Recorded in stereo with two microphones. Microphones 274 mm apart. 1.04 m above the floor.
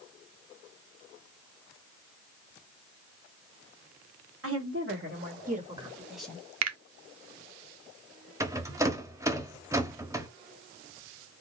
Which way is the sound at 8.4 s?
10° right (ahead or behind).